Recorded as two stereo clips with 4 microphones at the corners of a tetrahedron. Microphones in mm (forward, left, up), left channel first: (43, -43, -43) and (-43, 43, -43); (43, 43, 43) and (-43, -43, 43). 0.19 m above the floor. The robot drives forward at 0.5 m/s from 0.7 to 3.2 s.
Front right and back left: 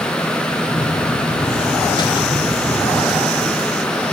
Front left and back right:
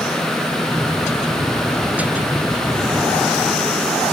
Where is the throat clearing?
No throat clearing in this recording.